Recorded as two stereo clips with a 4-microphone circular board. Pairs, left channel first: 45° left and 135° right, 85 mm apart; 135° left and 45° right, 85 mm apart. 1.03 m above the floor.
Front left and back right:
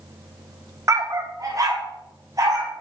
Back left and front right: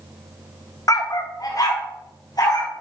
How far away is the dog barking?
About 0.8 m.